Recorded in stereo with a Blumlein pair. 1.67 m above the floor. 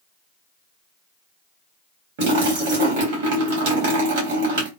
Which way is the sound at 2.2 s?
45° right.